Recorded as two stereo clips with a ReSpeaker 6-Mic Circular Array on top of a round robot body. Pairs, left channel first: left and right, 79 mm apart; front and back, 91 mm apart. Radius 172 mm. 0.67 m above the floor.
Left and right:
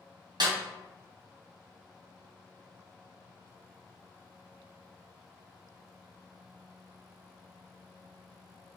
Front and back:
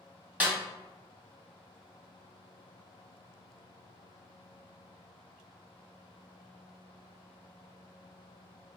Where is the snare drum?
110° right, 1.4 m.